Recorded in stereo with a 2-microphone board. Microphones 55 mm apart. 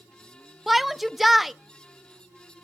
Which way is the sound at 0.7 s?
Centre (ahead or behind).